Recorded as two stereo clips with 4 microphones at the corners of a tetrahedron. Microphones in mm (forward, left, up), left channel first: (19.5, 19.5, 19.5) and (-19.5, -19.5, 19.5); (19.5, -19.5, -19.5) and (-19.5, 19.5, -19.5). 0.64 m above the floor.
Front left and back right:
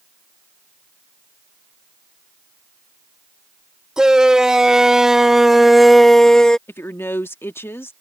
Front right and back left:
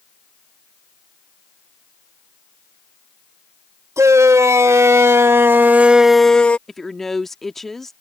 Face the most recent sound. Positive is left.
turn(degrees=40)